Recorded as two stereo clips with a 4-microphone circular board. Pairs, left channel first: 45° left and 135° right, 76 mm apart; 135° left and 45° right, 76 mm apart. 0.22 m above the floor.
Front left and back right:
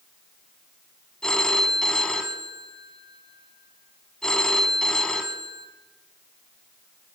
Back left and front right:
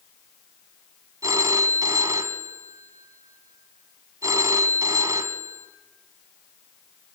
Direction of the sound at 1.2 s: 35° right.